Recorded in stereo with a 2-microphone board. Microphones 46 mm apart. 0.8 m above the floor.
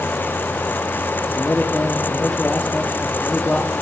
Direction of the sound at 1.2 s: 30° left (ahead or behind).